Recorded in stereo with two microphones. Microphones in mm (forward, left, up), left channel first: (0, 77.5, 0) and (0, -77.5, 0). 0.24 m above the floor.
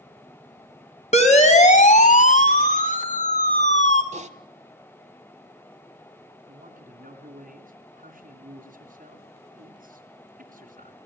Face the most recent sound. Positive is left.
turn(degrees=-55)  # may be behind; listen again after turning